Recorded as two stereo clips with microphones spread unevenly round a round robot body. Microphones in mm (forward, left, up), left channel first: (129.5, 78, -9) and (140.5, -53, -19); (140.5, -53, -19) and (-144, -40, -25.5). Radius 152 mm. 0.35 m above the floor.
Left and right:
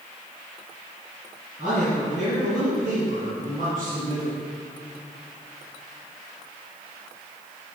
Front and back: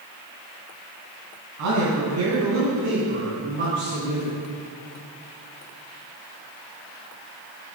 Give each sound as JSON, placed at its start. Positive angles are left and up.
{"t": 1.6, "sound": "a man speaking", "azimuth_deg": -160, "distance_m": 3.0}